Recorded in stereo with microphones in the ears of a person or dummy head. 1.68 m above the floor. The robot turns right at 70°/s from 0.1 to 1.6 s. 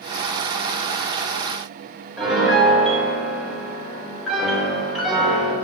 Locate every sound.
2.2 s a piano: centre (ahead or behind), 3 m